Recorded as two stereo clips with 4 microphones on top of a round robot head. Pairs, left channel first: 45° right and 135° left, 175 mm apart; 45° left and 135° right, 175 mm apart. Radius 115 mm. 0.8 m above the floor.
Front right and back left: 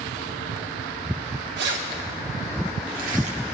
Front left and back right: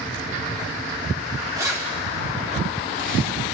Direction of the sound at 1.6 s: 155° left.